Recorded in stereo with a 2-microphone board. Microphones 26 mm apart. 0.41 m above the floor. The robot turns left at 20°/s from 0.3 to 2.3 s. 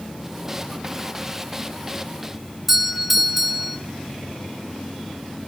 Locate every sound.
2.7 s a doorbell: 5° right (ahead or behind), 1.2 m